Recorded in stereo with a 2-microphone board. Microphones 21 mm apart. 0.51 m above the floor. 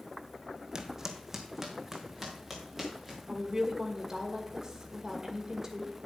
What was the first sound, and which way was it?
Footsteps, 30° right (ahead or behind).